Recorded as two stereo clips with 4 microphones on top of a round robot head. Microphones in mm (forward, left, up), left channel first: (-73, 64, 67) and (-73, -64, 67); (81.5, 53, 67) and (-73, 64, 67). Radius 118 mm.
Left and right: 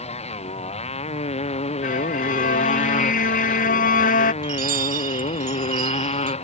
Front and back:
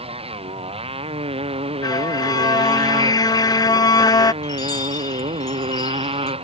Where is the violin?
60° left.